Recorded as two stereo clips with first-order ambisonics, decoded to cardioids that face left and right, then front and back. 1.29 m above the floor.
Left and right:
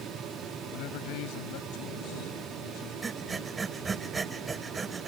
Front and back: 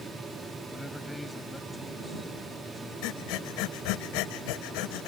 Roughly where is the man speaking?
Left.